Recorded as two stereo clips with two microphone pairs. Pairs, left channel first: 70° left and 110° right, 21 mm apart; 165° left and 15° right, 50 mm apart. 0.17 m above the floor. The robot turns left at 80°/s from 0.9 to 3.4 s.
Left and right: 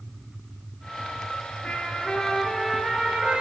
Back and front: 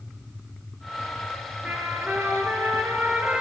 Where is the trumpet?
50° left, 0.6 m; by 3.4 s 90° right, 0.6 m.